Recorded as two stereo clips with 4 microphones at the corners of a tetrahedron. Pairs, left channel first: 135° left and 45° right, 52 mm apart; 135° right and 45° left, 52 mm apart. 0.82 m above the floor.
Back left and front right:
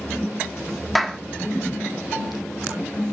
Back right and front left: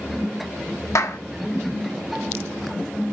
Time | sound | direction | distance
0.9 | a clap | 135° right | 1.2 m